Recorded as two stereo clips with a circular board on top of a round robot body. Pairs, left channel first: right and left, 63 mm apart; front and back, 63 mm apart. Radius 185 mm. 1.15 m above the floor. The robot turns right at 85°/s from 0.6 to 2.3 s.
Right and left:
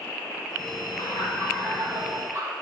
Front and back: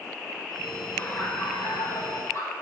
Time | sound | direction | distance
1.0 | laughter | 70° right | 4.5 m